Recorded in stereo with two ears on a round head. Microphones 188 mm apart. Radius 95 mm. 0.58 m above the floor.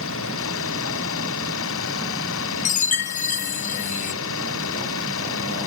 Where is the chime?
40° left (ahead or behind).